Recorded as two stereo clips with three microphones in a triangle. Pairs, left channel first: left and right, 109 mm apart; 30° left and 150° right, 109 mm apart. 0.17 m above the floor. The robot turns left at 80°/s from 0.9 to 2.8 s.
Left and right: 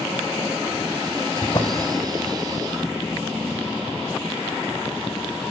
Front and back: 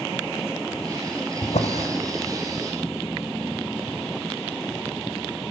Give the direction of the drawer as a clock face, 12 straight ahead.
10 o'clock.